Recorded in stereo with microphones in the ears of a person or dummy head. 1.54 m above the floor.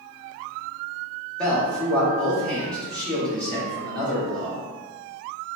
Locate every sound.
1.4 s a man speaking: 5° left (ahead or behind), 1.4 m